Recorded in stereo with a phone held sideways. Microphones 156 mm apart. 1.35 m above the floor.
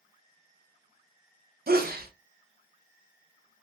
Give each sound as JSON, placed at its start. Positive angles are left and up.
{"t": 1.7, "sound": "a sneeze", "side_deg": -75, "distance_m": 0.7}